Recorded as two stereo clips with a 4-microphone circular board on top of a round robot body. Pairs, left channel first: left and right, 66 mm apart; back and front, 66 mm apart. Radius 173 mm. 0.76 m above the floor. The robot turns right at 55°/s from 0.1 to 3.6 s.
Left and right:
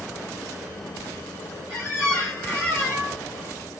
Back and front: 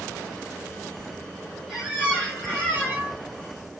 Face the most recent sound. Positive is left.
turn(degrees=-165)